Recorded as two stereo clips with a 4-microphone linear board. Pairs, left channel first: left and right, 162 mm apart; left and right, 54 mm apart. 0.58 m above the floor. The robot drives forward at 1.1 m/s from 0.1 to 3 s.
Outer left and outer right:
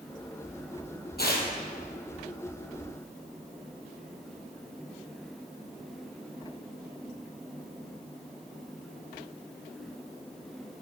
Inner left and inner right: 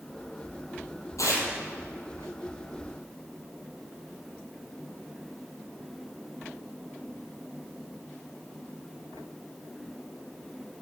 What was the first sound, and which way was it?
Tearing paper, 75° left (ahead or behind).